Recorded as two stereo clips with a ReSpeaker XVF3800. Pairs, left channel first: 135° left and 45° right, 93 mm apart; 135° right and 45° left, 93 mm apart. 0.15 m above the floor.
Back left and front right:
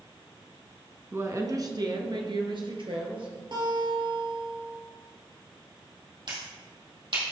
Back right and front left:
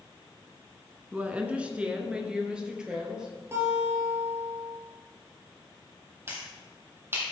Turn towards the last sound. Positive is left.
turn(degrees=-20)